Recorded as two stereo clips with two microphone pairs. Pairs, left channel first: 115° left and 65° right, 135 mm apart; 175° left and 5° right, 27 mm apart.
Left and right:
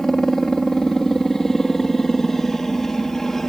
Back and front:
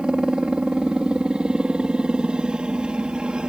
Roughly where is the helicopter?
Ahead left.